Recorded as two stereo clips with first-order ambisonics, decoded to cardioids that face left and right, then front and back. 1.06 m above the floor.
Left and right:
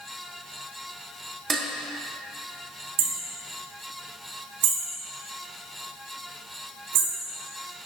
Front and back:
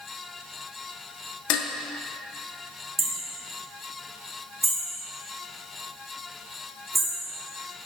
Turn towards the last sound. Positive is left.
turn(degrees=-100)